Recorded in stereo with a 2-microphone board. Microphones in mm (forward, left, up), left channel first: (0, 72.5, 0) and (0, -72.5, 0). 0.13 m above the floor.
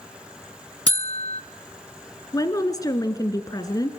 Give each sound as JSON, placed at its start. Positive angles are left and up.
{"t": 0.9, "sound": "a buzzer", "side_deg": 40, "distance_m": 0.6}
{"t": 2.3, "sound": "a woman speaking", "side_deg": 25, "distance_m": 1.5}